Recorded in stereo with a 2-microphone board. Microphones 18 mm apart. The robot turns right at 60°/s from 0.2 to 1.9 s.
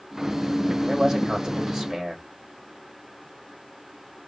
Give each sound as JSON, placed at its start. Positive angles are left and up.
{"t": 0.9, "sound": "a man speaking", "azimuth_deg": -110, "distance_m": 1.4}